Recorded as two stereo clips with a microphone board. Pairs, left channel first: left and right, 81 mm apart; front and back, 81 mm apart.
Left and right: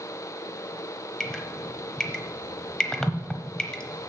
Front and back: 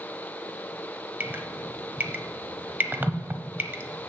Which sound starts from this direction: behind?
Dripping, at 1.2 s.